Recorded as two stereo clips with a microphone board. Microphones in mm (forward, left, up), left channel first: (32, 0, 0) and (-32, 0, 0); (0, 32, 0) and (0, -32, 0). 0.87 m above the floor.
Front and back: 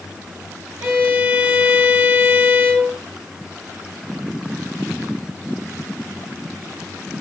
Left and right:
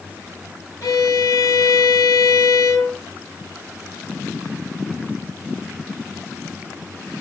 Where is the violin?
125° left, 2.5 m.